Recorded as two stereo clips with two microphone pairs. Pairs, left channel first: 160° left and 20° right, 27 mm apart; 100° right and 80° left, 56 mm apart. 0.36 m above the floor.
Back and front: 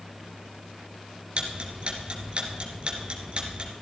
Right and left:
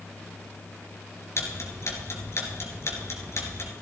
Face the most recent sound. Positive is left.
turn(degrees=-65)